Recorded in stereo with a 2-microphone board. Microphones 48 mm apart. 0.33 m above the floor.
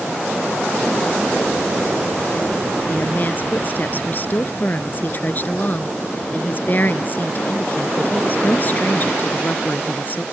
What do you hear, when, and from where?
2.9 s a woman speaking: 40° left (ahead or behind)